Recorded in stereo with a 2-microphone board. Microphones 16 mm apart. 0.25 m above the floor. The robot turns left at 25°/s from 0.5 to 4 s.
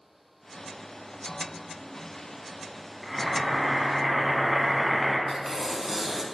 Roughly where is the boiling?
Centre.